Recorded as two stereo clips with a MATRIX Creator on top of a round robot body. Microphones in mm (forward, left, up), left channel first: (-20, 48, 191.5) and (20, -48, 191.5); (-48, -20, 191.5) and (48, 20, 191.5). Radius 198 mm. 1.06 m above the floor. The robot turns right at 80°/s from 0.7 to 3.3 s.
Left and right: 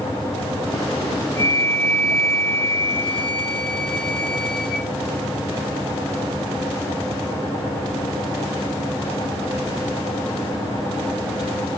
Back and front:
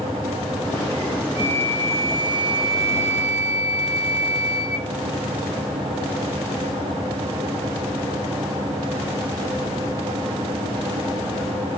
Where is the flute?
55° right, 0.8 m; by 4.9 s 105° left, 0.8 m.